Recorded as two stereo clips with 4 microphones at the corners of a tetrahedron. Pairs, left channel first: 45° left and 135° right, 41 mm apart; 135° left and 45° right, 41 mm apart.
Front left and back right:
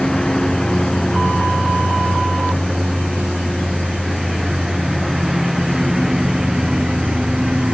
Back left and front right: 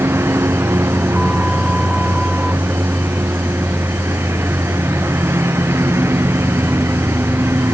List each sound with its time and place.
0.0 s a lawn mower: 35° right; by 7.7 s 60° right